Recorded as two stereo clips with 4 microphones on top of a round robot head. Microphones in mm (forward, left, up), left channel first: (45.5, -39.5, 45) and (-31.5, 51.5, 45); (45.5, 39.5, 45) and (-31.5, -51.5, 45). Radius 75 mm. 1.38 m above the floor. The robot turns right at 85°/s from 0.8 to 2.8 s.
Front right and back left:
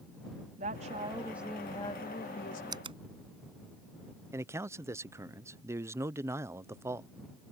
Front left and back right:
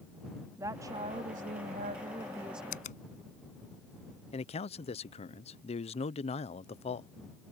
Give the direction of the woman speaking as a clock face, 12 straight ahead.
7 o'clock.